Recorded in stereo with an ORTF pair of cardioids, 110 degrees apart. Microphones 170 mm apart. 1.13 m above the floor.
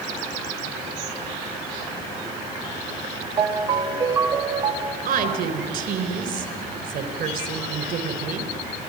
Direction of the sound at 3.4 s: 25° right.